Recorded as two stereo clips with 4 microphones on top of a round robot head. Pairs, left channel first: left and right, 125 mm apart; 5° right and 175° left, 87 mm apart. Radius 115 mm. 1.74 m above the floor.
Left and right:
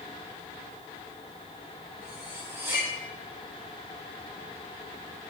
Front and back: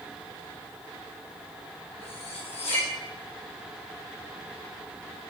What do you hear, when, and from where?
2.0 s cutlery clinking: 15° right, 2 m